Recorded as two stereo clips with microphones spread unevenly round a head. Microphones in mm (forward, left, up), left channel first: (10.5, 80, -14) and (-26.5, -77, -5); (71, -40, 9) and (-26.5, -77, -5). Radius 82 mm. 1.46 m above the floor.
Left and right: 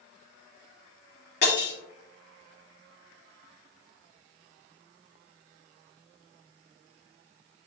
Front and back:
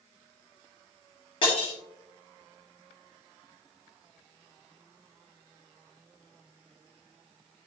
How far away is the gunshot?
I don't hear a gunshot.